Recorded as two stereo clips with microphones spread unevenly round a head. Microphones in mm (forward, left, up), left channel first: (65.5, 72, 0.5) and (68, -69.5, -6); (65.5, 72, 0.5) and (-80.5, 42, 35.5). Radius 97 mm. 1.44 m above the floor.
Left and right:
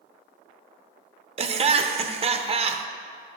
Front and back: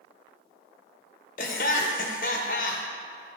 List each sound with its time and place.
1.4 s laughter: 45° right, 0.6 m